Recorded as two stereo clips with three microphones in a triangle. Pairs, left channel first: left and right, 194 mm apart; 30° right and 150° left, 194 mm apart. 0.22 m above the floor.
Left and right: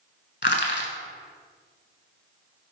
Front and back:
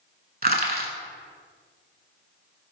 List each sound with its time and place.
0.4 s crushing: 115° left, 0.7 m